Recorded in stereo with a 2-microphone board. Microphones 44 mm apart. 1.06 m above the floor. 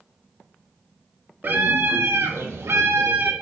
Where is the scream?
50° right (ahead or behind), 1.5 m; by 3.3 s 60° right (ahead or behind), 1.5 m.